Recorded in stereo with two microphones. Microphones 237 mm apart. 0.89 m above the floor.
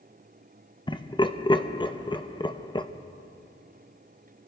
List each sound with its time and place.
0.9 s laughter: 20° left (ahead or behind), 0.6 m